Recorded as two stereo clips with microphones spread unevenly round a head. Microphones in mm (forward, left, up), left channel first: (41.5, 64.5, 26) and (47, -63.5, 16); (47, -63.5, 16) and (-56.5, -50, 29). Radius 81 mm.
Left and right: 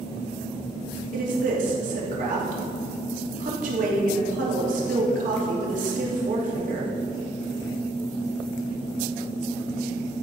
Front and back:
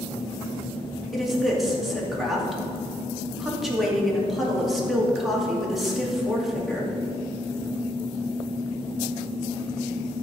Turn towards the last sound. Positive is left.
turn(degrees=-95)